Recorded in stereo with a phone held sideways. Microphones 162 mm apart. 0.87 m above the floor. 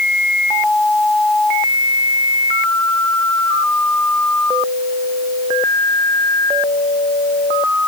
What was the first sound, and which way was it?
Only background noise.